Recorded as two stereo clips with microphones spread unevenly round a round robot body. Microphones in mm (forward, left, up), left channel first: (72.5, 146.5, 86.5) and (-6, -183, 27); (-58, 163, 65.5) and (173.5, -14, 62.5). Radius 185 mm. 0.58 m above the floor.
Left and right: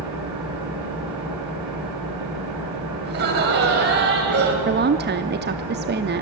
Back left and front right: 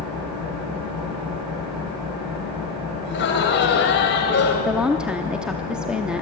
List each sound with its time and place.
0.0 s an engine running: 75° right, 6.5 m
3.0 s laughter: 160° right, 4 m
4.7 s a woman speaking: 120° right, 0.7 m